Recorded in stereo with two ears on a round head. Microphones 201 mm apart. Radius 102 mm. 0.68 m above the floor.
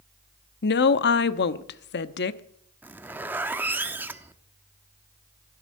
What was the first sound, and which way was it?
A woman speaking, 50° left (ahead or behind).